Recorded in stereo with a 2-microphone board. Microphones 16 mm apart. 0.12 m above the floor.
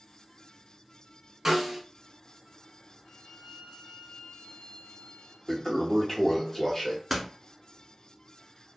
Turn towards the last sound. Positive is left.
turn(degrees=-5)  # may be behind; listen again after turning